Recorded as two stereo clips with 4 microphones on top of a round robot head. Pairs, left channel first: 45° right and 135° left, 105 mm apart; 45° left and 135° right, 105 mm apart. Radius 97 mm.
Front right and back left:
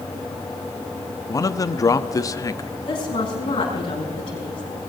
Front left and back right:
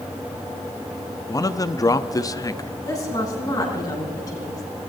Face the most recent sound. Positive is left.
turn(degrees=-10)